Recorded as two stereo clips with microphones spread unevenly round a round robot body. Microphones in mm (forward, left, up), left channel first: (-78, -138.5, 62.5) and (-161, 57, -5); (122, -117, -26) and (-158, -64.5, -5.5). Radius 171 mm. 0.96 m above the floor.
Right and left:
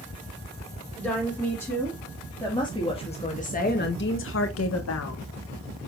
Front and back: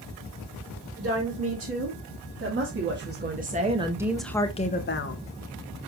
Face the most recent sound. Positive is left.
turn(degrees=-35)